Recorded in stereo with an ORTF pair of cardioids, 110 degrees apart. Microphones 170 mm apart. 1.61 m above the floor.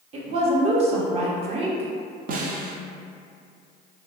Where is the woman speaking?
40° right, 0.8 m.